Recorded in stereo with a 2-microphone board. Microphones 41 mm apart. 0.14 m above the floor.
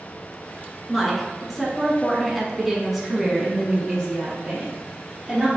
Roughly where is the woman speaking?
Centre.